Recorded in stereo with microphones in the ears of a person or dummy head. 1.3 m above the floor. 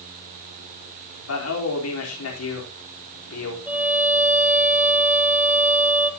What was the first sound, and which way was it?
A man speaking, 75° left (ahead or behind).